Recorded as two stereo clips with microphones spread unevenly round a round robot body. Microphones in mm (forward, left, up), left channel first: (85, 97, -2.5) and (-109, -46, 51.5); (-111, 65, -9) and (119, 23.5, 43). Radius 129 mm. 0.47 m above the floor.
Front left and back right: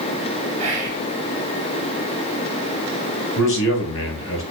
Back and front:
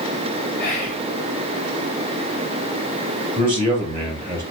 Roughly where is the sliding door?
No sliding door in this recording.